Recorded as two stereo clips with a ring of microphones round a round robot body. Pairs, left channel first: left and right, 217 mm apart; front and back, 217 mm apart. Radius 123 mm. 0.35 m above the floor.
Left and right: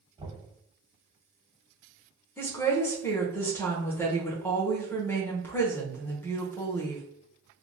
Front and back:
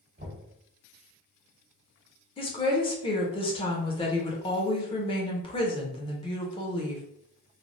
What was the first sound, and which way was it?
Knocking, 150° right.